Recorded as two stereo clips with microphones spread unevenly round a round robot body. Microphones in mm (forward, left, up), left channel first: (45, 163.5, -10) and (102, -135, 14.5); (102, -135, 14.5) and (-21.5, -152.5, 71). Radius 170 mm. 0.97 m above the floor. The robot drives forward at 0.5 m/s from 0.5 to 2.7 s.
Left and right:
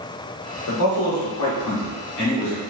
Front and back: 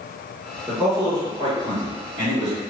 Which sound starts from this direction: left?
A man speaking, at 0.7 s.